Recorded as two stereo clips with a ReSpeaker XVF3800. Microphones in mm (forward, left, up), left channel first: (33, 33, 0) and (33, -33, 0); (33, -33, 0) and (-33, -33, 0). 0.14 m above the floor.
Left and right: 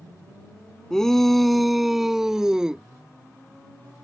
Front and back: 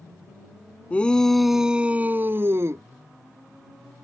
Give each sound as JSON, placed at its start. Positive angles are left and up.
{"t": 0.9, "sound": "a shout", "azimuth_deg": 20}